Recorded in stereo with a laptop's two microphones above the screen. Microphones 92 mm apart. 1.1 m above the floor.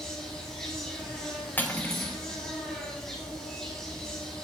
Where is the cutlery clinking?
20° left (ahead or behind), 0.9 m.